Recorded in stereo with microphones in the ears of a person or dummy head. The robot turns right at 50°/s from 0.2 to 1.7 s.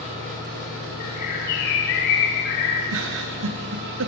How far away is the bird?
About 2.5 m.